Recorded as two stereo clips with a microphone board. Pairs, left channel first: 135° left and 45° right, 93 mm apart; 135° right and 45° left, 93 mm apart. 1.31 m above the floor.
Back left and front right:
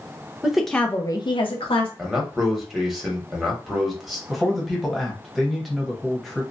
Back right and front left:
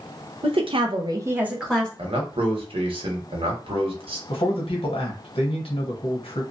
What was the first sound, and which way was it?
A woman speaking, 35° left.